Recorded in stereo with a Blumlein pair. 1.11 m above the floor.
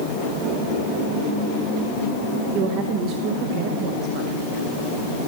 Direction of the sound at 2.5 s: 45° right.